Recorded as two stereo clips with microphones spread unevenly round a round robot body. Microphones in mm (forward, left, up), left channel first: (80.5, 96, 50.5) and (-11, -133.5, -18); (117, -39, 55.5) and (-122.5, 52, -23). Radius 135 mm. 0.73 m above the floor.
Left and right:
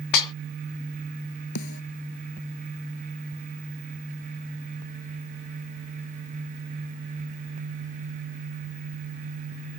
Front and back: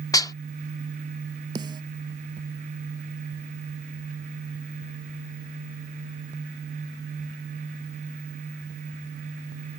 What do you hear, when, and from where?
0.1 s dishes clattering: 60° left
1.6 s a snare drum: 80° left